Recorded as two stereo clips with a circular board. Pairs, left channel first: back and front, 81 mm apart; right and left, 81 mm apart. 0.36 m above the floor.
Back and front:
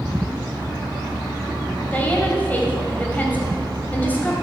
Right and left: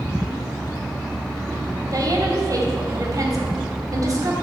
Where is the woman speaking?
115° left, 2 m.